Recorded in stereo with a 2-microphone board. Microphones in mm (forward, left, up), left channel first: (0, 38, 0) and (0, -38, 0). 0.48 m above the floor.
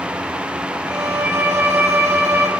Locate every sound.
0.9 s a violin: 40° right (ahead or behind), 1.1 m